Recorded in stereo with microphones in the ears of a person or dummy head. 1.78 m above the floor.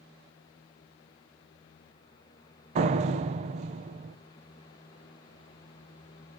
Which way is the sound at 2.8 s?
40° right (ahead or behind).